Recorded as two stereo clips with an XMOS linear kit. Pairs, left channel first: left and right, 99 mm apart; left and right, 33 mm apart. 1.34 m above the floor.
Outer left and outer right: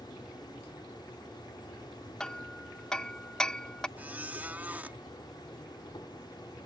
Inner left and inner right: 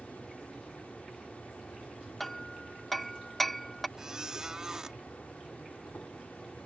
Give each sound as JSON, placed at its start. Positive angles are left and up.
{"t": 0.0, "sound": "an insect", "side_deg": 50}
{"t": 2.2, "sound": "hammering", "side_deg": 10}
{"t": 4.0, "sound": "a squeak", "side_deg": -15}